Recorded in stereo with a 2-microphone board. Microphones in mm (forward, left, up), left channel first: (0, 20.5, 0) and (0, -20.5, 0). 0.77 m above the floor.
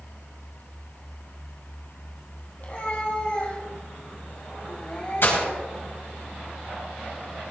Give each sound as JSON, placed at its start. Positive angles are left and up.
{"t": 2.6, "sound": "a cat meowing", "side_deg": 40, "distance_m": 4.0}
{"t": 5.2, "sound": "breaking glass", "side_deg": 65, "distance_m": 3.0}